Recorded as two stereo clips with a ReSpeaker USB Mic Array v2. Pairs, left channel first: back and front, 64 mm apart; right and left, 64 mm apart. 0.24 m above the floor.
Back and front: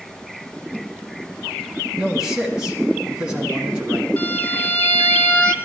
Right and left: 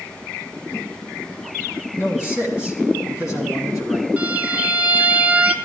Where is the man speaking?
70° right, 1.9 m.